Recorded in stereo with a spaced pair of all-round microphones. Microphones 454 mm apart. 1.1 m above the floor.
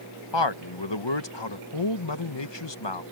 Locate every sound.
0.3 s a man speaking: 65° left (ahead or behind)